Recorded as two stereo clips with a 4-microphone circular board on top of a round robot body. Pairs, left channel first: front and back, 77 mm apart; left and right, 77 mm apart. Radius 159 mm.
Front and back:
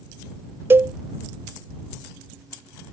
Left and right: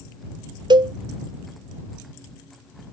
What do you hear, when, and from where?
0.7 s a cowbell: 120° right